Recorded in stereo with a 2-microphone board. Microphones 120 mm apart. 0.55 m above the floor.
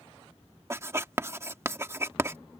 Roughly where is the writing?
Right.